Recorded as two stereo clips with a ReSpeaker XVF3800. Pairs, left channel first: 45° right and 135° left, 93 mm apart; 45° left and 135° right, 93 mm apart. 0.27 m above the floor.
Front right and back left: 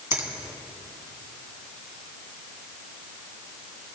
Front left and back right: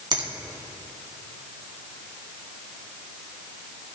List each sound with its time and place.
0.1 s a finger snap: 165° right, 2 m